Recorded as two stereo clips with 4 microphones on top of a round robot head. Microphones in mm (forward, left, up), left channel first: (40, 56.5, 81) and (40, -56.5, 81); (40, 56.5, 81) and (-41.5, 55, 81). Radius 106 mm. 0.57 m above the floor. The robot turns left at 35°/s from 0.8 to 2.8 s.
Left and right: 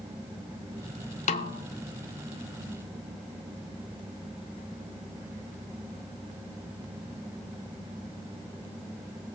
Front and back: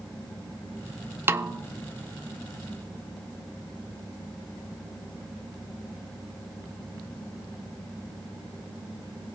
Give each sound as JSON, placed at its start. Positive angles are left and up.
{"t": 1.3, "sound": "a snare drum", "azimuth_deg": 120, "distance_m": 0.7}